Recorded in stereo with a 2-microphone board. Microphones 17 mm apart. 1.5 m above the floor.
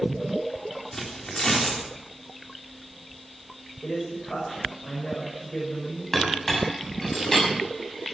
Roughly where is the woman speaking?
Left.